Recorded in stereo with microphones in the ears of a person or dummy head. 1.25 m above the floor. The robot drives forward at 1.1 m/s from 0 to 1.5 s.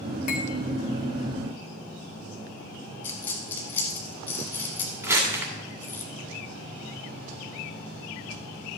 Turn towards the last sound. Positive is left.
turn(degrees=-15)  # may be behind; listen again after turning